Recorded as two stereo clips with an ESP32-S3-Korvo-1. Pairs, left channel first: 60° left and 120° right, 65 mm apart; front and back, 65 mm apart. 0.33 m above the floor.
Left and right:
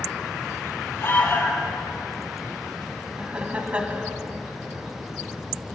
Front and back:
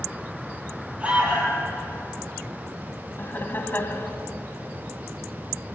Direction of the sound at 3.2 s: 55° right.